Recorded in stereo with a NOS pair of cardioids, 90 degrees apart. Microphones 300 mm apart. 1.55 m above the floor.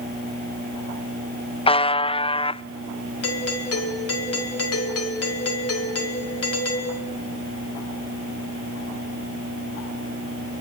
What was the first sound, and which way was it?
A buzzer, 20° left.